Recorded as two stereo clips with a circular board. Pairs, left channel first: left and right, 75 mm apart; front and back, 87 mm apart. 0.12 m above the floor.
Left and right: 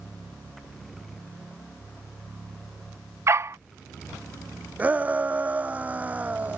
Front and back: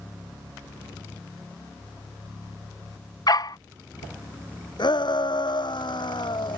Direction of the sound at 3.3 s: 40° right.